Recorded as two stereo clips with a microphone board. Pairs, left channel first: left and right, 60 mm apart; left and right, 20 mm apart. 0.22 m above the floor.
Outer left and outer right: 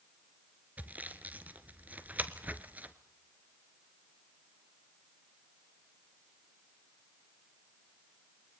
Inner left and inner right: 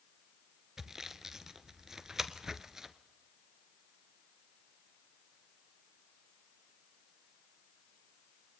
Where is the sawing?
30° right (ahead or behind), 1.2 m.